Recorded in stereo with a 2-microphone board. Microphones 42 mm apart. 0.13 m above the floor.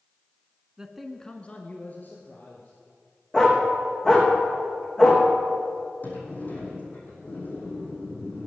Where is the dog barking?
15° left (ahead or behind), 3.5 m.